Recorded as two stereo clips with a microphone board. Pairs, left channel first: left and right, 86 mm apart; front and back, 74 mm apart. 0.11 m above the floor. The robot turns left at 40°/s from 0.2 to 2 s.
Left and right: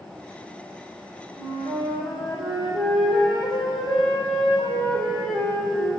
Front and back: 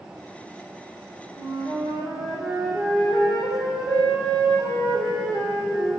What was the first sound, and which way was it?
A flute, 155° right.